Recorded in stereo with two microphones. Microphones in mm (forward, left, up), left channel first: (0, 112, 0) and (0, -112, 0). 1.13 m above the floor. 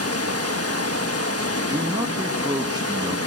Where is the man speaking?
15° right (ahead or behind), 2 m.